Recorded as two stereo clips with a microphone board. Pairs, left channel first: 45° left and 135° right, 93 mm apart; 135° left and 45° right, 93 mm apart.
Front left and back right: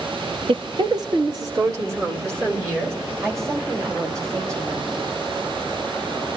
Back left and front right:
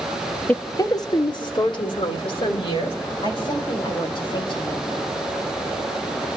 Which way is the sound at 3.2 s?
165° left.